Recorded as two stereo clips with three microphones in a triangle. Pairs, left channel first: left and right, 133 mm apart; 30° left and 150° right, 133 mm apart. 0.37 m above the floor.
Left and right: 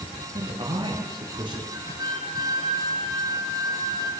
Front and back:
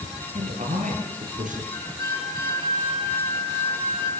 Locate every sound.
0.3 s a man speaking: 140° right, 7.5 m; by 1.6 s 145° right, 7.5 m
1.7 s a flute: 30° right, 6 m